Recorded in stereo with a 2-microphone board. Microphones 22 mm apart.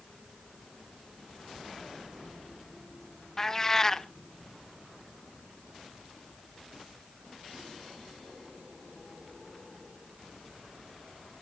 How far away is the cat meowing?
About 0.6 m.